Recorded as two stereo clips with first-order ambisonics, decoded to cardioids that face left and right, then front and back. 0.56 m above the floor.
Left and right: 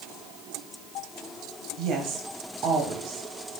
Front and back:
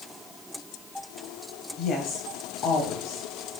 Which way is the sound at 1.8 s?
50° right.